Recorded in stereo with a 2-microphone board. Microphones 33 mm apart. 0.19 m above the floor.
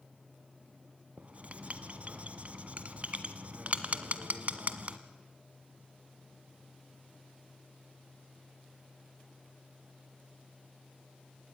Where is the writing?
45° right (ahead or behind), 1.0 m.